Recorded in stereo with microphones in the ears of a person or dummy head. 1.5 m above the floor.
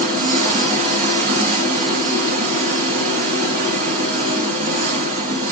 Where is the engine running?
50° right (ahead or behind), 1.3 m.